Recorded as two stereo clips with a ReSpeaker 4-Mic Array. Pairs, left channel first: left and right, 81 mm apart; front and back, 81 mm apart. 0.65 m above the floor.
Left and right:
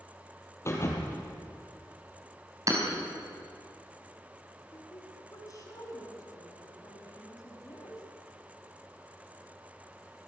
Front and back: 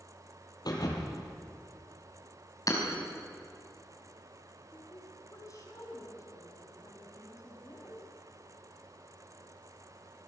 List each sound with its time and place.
0.7 s a thud: 35° left, 4 m
2.7 s hammering: 45° right, 5 m
4.7 s a woman speaking: 45° left, 5.5 m